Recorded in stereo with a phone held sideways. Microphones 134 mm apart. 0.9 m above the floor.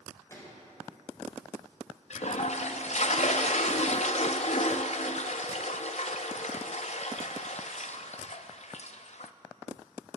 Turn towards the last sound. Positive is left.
turn(degrees=60)  # may be behind; listen again after turning